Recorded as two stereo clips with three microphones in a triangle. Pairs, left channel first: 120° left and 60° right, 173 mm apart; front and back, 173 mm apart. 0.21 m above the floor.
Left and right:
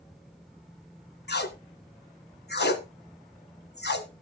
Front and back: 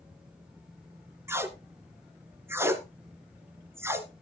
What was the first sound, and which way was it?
Tape being pulled, 105° left.